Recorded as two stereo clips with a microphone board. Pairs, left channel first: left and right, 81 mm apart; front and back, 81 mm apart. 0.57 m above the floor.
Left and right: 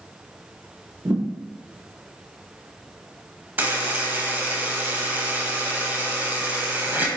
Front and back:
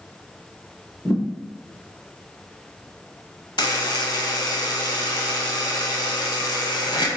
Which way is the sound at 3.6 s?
25° right.